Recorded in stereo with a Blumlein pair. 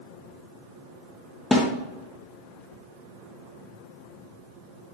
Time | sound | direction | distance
1.5 | a snare drum | 10° left | 2.0 m